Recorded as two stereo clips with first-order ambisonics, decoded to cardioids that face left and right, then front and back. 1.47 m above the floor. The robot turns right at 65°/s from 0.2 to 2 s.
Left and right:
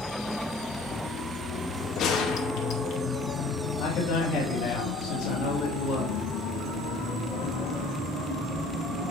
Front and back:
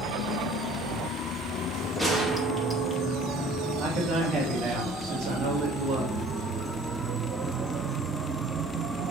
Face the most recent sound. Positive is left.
turn(degrees=135)